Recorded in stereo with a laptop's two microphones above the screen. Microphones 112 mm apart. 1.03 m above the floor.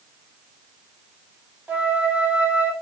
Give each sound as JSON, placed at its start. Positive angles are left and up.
{"t": 1.7, "sound": "a flute", "side_deg": -15, "distance_m": 1.1}